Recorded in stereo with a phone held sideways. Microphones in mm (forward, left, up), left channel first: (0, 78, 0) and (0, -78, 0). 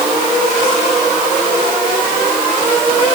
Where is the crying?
No crying in this recording.